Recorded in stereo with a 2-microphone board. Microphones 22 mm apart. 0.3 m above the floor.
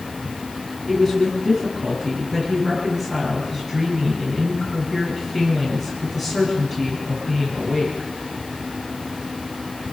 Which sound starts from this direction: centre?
A woman speaking, at 0.9 s.